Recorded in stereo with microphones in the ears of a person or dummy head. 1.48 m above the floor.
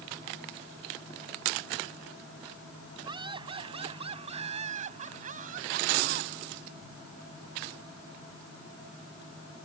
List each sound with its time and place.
3.0 s laughter: 30° right (ahead or behind); by 6.3 s 60° right (ahead or behind)